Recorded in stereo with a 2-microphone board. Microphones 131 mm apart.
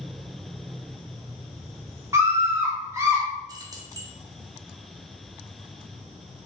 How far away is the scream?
About 0.8 m.